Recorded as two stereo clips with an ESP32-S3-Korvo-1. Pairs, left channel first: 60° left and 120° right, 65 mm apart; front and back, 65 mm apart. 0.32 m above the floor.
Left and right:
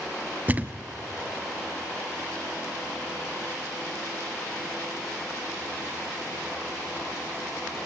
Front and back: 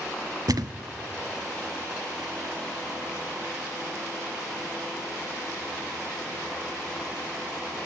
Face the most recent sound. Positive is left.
turn(degrees=175)